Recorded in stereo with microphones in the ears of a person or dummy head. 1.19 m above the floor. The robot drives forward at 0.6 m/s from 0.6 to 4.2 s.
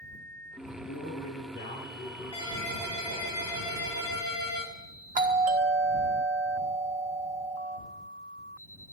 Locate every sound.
0.8 s a man speaking: 40° left (ahead or behind), 9 m; by 3.3 s 35° left (ahead or behind), 10 m
2.3 s a ringtone: 20° left (ahead or behind), 6 m; by 4.7 s 15° left (ahead or behind), 7 m
5.2 s a doorbell: 35° right (ahead or behind), 1.3 m